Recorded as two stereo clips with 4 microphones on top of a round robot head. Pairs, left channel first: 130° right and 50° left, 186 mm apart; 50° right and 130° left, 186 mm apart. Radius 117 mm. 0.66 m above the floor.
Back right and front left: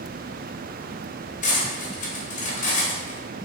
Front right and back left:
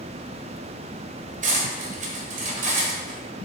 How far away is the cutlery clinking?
About 1.5 m.